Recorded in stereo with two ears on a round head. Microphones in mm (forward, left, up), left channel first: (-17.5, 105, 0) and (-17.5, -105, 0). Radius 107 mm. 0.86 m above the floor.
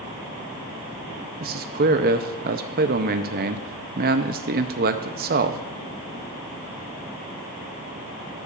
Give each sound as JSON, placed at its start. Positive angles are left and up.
{"t": 1.4, "sound": "a man speaking", "side_deg": -40, "distance_m": 0.6}